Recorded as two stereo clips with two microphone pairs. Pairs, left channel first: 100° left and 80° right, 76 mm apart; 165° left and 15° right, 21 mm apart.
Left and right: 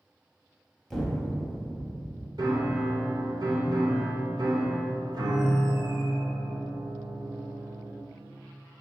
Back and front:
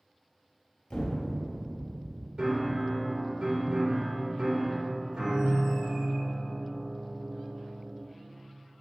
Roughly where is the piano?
Ahead right.